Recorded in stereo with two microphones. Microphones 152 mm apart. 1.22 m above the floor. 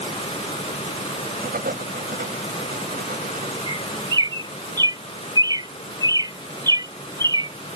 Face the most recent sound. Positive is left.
turn(degrees=-25)  # may be behind; listen again after turning